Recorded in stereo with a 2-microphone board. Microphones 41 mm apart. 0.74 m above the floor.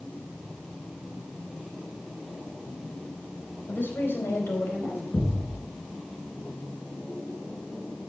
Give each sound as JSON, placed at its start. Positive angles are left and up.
{"t": 3.7, "sound": "a woman speaking", "side_deg": 60, "distance_m": 4.0}
{"t": 5.1, "sound": "a thud", "side_deg": 50, "distance_m": 5.0}